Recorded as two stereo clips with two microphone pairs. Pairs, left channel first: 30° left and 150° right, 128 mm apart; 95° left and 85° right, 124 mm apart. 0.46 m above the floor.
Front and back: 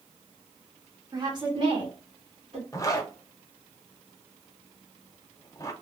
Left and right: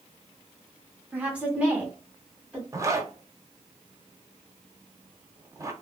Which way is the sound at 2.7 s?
25° right.